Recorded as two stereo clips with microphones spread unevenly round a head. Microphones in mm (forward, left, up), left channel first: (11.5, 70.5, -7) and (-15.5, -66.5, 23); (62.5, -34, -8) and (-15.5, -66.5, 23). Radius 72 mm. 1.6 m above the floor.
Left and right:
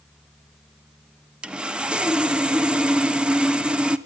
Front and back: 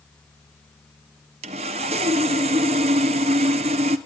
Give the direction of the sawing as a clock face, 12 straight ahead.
6 o'clock.